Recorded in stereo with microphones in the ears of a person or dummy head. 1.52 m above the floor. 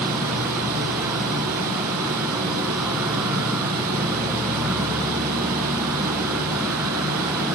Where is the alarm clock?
I don't hear an alarm clock.